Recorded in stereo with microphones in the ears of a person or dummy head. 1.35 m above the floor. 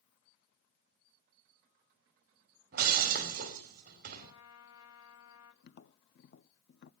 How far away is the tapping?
About 0.6 m.